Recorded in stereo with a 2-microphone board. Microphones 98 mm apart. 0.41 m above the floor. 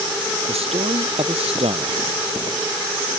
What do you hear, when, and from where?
0.5 s a man speaking: 80° right